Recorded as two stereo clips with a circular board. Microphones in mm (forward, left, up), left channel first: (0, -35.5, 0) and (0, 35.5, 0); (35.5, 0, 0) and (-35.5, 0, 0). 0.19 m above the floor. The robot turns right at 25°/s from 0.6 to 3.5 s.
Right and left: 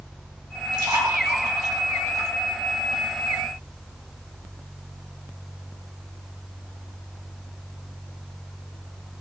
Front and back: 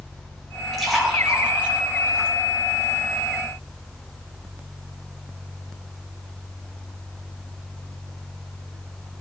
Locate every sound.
0.7 s a splash: 85° left, 4 m; by 2.3 s 125° left, 4 m